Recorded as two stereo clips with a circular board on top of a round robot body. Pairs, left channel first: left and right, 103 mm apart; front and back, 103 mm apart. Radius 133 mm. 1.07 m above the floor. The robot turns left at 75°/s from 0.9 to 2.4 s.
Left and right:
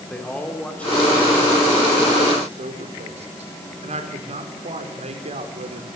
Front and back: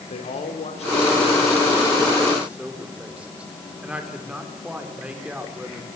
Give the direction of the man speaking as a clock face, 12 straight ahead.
12 o'clock.